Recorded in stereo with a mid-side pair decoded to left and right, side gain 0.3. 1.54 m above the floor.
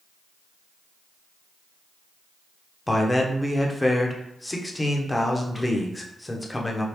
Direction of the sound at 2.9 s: 20° left.